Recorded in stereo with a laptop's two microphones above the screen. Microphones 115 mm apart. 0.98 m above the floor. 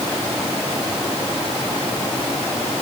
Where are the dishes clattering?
I don't hear dishes clattering.